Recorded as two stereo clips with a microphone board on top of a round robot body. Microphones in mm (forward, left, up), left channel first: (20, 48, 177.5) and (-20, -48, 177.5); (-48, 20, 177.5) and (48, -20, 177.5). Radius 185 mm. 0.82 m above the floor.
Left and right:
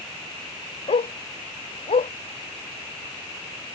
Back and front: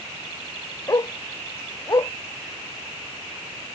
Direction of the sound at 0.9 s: 95° left.